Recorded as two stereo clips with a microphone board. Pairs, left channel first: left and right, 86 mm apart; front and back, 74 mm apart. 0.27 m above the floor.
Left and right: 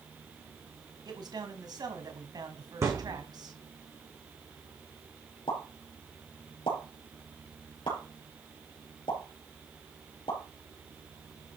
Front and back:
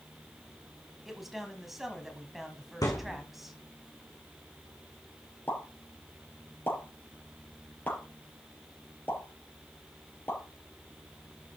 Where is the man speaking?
95° right, 2 m.